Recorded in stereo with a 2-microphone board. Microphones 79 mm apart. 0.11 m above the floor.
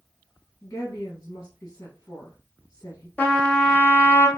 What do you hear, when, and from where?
0.6 s a woman speaking: 35° left (ahead or behind), 1.3 m
3.2 s a trumpet: 20° left (ahead or behind), 1.0 m